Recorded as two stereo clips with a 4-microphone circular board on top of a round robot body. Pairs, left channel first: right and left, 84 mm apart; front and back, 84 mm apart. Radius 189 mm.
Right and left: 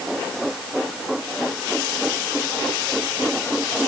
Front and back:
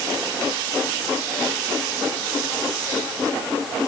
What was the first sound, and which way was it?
Only background noise.